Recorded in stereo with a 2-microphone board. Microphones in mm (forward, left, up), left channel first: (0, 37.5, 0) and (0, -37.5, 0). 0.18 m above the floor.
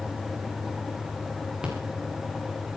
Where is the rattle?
10° right (ahead or behind), 6.5 m.